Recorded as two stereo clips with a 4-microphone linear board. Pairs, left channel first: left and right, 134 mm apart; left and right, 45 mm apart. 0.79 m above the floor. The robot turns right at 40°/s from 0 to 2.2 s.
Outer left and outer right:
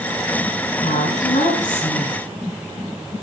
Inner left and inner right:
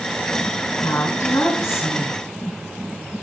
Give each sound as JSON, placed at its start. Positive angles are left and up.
{"t": 0.8, "sound": "a woman speaking", "azimuth_deg": 75, "distance_m": 7.0}